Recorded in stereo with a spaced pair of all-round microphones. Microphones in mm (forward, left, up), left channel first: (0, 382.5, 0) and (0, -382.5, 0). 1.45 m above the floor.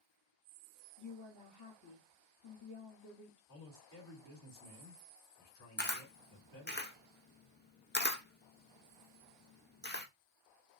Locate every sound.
1.0 s a woman speaking: 25° left (ahead or behind), 1.0 m
3.5 s a man speaking: 15° left (ahead or behind), 2.5 m
5.8 s a camera shutter: 15° left (ahead or behind), 0.5 m